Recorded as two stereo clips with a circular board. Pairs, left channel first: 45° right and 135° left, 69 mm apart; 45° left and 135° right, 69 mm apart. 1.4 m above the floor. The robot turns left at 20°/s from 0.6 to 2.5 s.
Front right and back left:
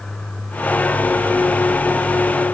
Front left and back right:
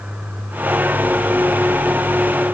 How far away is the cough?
I don't hear a cough.